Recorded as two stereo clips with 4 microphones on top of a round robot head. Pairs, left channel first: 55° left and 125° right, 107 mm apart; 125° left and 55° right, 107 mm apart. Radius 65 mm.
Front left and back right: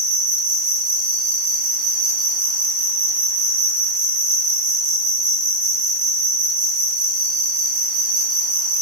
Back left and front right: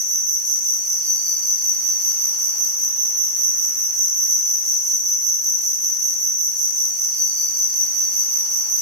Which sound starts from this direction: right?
An insect, at 0.0 s.